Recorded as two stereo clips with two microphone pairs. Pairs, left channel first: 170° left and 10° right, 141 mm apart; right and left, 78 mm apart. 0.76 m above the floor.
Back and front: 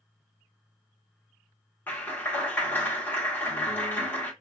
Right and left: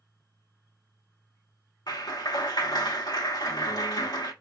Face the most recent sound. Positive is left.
turn(degrees=-115)